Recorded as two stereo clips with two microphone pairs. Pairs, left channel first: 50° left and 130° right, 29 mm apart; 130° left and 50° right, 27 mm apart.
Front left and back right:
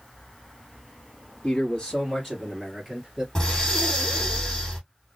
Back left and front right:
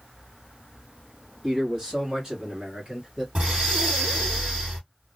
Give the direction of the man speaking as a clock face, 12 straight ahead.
12 o'clock.